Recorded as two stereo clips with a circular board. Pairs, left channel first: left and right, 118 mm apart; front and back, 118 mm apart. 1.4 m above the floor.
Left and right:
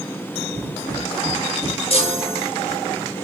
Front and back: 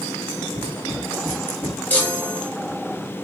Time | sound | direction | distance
0.5 | footsteps | 140° right | 1.7 m
1.9 | a chime | 75° left | 1.3 m